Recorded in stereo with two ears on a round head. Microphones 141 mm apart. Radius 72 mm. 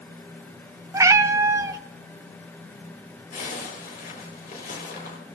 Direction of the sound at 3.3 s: 60° left (ahead or behind).